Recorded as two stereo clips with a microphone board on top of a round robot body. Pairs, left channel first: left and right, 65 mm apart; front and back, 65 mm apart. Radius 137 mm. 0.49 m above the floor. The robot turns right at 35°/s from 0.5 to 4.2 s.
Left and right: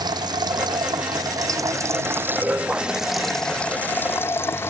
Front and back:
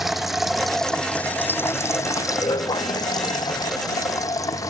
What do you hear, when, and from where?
0.0 s running water: 95° right; by 4.7 s 35° left